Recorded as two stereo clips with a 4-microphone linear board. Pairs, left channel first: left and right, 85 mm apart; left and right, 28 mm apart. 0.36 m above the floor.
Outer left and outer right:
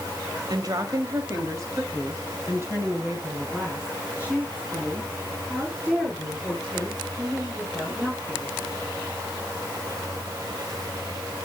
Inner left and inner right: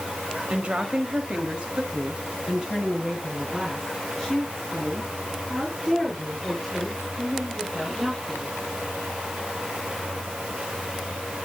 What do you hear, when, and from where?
0.5 s a woman speaking: 50° right (ahead or behind), 1.4 m; by 8.5 s 10° right (ahead or behind), 6.5 m